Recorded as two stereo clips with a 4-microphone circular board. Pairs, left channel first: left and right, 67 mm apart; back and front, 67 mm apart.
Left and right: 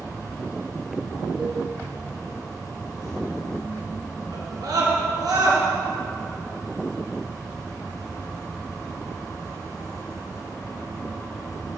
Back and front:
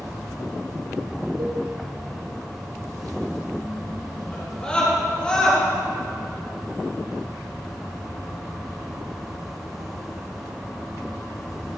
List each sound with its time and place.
0.0 s an insect: 80° left, 3 m
1.4 s a cowbell: 5° right, 2.5 m
4.3 s a scream: 110° right, 3.5 m